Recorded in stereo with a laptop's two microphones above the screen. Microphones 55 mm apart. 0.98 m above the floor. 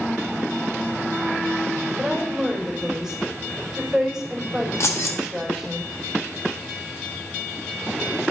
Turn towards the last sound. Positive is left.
turn(degrees=55)  # may be behind; listen again after turning